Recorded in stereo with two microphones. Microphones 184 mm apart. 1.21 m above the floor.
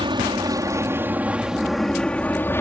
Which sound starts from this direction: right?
An aircraft, at 0.0 s.